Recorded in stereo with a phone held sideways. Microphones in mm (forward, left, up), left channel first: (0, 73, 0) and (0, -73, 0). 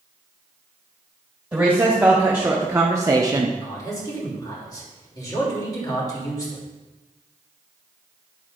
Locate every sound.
1.5 s a woman speaking: 10° right (ahead or behind), 1.6 m; by 3.5 s 30° right (ahead or behind), 0.6 m
3.6 s a man speaking: 25° left (ahead or behind), 3 m